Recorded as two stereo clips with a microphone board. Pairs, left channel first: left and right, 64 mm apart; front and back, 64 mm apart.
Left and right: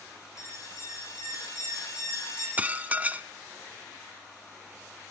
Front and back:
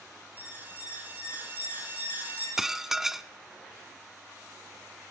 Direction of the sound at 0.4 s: 120° left.